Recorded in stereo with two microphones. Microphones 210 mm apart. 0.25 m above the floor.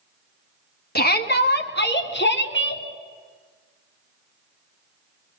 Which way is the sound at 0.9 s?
50° left (ahead or behind).